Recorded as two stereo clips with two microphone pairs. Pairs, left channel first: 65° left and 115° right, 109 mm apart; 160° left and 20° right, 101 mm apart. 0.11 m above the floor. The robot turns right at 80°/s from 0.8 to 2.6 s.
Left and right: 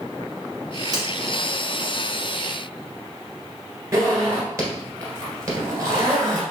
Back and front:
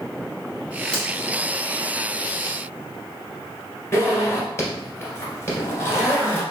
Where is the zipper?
155° right, 1.6 m.